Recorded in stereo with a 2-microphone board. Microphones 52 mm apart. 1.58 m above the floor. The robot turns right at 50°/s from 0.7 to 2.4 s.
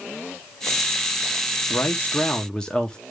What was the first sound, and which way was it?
A man speaking, 130° left.